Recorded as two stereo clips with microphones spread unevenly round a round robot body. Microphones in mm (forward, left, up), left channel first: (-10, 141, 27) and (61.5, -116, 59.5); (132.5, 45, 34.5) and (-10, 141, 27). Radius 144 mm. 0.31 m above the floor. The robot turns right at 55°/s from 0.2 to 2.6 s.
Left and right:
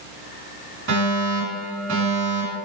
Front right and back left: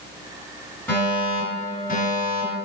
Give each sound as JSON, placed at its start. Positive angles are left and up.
{"t": 0.9, "sound": "a fire alarm", "azimuth_deg": -110, "distance_m": 2.5}